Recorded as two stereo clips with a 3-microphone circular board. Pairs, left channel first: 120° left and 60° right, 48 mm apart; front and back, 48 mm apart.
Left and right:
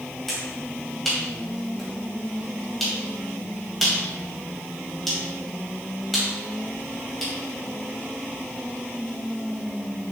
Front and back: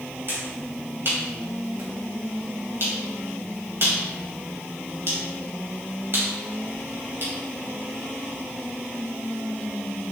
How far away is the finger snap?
About 3 m.